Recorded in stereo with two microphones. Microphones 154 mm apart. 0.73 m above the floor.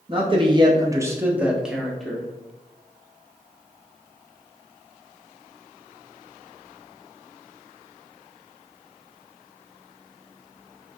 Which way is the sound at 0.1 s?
35° right (ahead or behind).